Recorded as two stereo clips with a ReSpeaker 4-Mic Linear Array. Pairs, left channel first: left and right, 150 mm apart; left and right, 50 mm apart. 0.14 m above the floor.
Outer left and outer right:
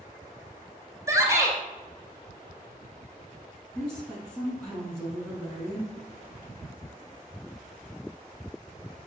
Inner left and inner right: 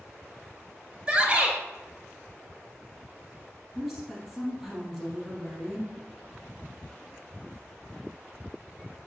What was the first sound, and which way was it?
A shout, 20° right (ahead or behind).